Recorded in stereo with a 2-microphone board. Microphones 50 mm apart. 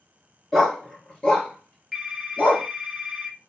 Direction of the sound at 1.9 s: 5° left (ahead or behind).